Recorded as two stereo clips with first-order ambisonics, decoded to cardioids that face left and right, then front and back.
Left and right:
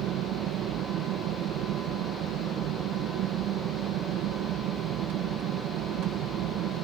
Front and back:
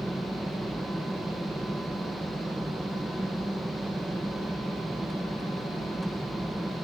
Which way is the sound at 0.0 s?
95° right.